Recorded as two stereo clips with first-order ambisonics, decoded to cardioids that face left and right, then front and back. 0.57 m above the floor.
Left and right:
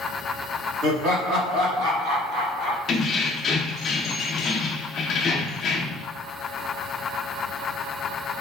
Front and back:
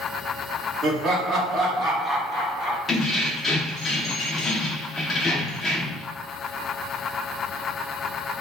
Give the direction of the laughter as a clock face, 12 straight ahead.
4 o'clock.